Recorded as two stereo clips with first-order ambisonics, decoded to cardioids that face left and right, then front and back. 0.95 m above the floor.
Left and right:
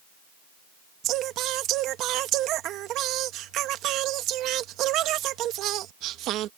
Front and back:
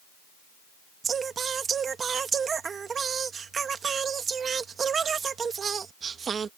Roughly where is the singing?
Behind right.